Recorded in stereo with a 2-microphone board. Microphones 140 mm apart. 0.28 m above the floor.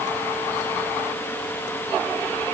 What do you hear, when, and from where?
Only background noise.